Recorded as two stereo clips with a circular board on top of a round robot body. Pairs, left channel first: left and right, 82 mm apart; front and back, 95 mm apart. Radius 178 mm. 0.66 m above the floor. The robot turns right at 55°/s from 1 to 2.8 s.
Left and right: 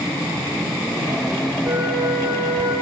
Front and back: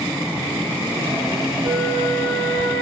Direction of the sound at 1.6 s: 120° right.